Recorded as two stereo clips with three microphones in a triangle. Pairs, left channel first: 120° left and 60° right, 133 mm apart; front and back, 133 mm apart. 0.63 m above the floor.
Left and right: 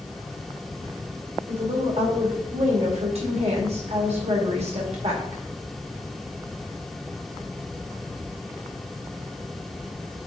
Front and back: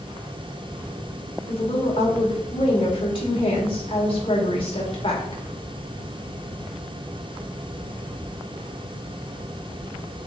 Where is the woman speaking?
35° right, 2 m.